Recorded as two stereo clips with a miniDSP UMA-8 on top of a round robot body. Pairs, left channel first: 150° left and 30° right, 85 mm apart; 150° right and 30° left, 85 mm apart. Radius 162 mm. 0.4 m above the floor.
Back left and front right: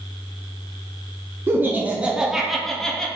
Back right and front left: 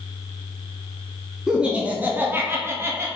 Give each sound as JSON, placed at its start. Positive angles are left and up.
{"t": 1.5, "sound": "laughter", "azimuth_deg": -45, "distance_m": 1.0}